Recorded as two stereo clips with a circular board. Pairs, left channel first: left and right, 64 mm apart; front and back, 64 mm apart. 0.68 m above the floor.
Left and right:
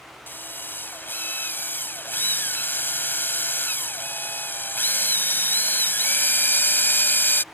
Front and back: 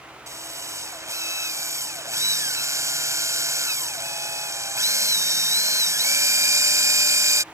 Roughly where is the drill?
Behind left.